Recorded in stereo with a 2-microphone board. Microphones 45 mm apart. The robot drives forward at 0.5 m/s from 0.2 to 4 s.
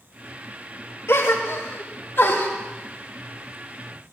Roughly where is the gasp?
Left.